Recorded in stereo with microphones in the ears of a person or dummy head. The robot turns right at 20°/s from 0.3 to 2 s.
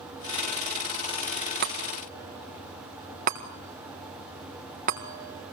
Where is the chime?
50° right (ahead or behind), 4 m; by 5.5 s 45° right (ahead or behind), 4 m.